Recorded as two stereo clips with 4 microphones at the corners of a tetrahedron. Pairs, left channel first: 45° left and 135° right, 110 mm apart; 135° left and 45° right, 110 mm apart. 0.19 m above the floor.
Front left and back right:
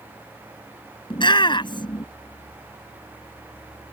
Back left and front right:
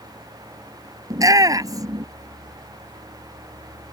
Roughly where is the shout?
Ahead.